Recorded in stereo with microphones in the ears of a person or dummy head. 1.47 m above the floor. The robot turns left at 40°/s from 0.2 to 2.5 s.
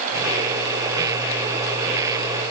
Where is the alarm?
No alarm in this recording.